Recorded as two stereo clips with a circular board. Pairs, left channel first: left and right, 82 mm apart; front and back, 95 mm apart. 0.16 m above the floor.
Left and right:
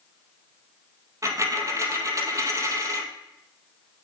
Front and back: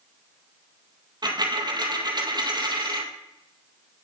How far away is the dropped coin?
About 1.8 m.